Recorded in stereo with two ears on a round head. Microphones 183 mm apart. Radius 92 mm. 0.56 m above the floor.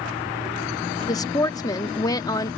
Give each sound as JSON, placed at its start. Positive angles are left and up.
{"t": 1.1, "sound": "a woman speaking", "side_deg": 20}